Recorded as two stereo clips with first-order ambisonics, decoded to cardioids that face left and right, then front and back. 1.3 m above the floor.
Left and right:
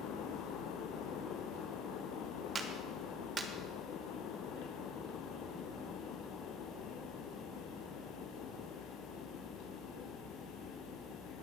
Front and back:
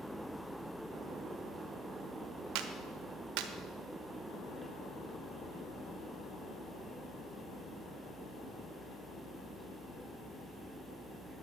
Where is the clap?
165° right, 1.2 m.